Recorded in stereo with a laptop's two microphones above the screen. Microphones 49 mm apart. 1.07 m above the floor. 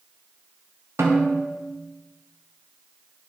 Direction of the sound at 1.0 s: 70° right (ahead or behind).